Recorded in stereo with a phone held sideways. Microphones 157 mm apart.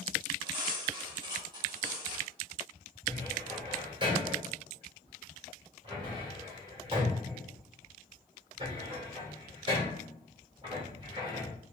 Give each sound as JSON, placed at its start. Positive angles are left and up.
{"t": 0.5, "sound": "cutlery clinking", "side_deg": -30, "distance_m": 1.5}
{"t": 3.1, "sound": "a cupboard door", "side_deg": -30, "distance_m": 2.5}